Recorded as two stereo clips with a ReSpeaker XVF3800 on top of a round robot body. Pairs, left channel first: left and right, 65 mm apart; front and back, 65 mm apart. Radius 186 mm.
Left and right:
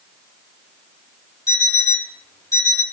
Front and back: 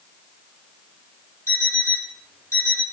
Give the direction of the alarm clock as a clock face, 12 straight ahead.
10 o'clock.